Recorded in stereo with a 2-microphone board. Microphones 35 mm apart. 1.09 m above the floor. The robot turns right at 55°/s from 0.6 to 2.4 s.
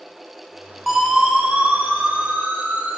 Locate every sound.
0.9 s a siren: centre (ahead or behind), 9.5 m; by 3.0 s 85° right, 9 m